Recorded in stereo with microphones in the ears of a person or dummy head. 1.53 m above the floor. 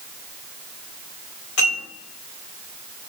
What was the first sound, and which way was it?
Dishes clattering, 80° left.